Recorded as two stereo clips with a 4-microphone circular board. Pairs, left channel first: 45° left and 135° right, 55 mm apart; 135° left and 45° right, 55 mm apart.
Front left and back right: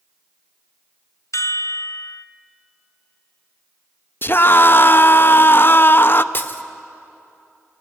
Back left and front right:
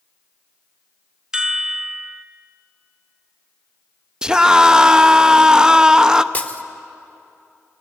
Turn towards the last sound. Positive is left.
turn(degrees=80)